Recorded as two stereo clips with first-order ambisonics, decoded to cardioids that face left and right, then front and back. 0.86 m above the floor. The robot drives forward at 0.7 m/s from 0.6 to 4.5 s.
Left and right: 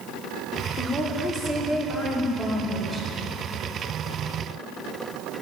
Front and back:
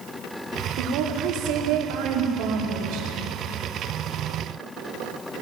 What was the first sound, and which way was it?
A woman speaking, 170° left.